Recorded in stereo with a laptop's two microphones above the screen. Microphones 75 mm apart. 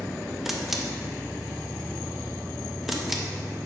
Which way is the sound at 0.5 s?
5° right (ahead or behind).